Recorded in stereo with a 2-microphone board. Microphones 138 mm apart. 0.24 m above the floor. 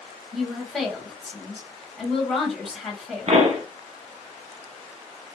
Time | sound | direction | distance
0.3 | a woman speaking | 5° left (ahead or behind) | 1.4 m
3.3 | a pop | 50° right (ahead or behind) | 1.0 m